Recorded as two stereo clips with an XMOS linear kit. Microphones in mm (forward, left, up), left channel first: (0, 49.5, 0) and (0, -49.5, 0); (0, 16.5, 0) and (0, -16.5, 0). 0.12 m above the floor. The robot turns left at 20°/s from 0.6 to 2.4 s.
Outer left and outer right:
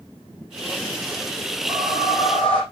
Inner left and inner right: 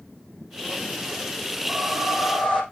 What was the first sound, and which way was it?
A whoosh, centre (ahead or behind).